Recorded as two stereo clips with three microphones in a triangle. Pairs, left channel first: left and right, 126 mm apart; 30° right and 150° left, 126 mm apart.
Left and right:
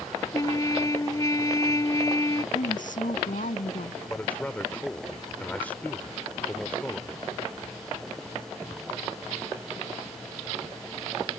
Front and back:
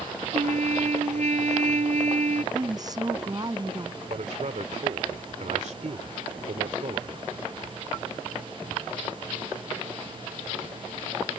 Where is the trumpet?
150° left.